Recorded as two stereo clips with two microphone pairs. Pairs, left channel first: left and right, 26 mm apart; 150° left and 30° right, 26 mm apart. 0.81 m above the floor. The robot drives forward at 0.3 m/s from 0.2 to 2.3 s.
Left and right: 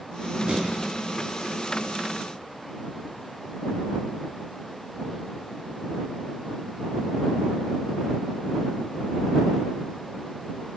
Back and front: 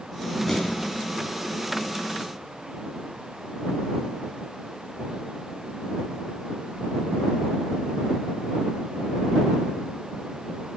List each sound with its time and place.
0.5 s an explosion: 135° right, 7 m